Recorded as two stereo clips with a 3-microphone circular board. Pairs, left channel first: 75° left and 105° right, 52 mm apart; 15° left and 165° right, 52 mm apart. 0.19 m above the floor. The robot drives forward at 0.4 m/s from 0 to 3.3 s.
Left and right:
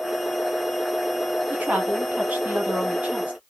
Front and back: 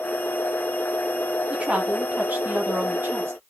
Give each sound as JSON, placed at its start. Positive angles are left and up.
{"t": 1.5, "sound": "a woman speaking", "azimuth_deg": -125, "distance_m": 1.1}